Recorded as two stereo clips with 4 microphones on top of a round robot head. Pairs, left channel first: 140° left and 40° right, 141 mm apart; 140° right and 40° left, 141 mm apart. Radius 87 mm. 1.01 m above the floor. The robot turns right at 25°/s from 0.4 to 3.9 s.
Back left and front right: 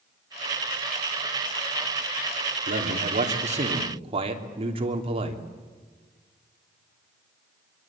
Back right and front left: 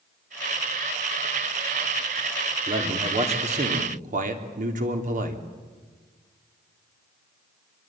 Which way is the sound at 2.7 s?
20° right.